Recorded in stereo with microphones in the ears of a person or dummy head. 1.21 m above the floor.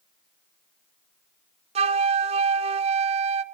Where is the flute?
35° right (ahead or behind), 0.9 m.